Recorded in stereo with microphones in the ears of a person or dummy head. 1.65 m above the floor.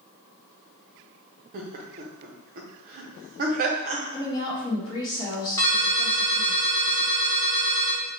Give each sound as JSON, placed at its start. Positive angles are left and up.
{"t": 1.5, "sound": "laughter", "side_deg": -40, "distance_m": 0.5}
{"t": 4.1, "sound": "a woman speaking", "side_deg": 25, "distance_m": 1.0}
{"t": 5.6, "sound": "a ringtone", "side_deg": 15, "distance_m": 1.2}